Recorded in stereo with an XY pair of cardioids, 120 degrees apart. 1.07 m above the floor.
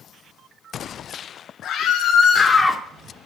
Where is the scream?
60° left, 1.4 m; by 2.8 s 10° right, 0.7 m.